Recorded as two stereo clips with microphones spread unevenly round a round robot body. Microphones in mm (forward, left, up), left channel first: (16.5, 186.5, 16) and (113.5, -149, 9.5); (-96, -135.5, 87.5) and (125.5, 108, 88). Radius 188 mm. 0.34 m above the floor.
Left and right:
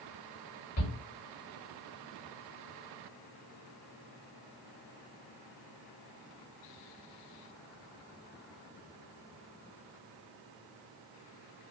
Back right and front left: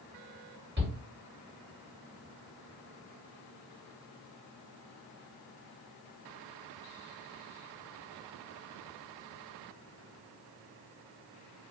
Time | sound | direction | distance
0.8 | a shout | 90° left | 1.9 m